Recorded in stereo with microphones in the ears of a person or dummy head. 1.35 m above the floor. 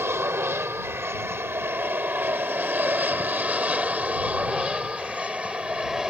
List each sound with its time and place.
0.0 s an aircraft: 10° right (ahead or behind); by 6.1 s centre (ahead or behind)